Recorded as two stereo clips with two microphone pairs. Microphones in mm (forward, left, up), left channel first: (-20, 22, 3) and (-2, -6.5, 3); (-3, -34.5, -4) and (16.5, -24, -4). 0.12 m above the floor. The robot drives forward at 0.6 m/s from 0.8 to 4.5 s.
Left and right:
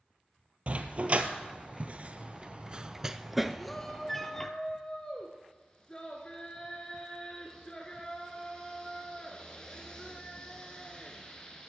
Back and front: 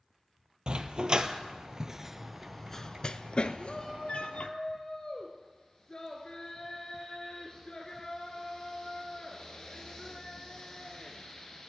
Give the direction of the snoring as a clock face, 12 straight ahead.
No snoring in this recording.